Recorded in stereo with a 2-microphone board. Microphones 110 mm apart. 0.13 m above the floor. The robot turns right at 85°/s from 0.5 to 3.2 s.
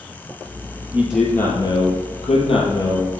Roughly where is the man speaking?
Ahead.